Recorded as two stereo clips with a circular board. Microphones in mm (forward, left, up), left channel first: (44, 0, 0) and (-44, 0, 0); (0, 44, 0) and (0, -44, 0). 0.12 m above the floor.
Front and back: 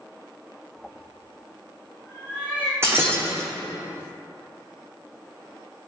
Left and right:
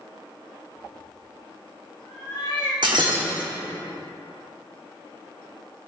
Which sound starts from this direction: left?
A cat meowing, at 0.8 s.